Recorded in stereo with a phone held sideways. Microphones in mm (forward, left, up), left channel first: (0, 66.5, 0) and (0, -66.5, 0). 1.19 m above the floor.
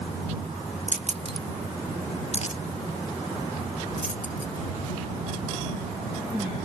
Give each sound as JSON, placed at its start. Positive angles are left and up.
{"t": 0.9, "sound": "keys jangling", "side_deg": -65}